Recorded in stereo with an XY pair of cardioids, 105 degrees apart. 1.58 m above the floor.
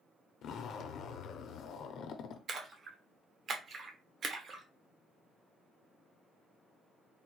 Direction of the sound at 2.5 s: 50° right.